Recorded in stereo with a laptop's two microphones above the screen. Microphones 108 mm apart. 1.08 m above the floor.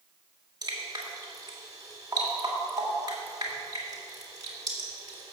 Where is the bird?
I don't hear a bird.